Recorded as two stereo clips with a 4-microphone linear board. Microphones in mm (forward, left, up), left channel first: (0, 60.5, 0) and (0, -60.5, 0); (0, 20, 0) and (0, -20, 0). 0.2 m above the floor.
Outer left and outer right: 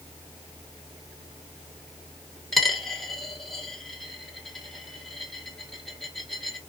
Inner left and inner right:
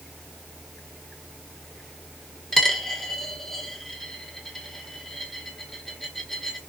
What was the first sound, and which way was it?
A dropped coin, 5° left (ahead or behind).